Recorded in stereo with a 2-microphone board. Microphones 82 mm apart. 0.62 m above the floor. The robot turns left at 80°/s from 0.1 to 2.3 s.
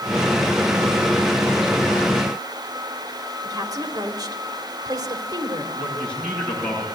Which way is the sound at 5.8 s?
15° left (ahead or behind).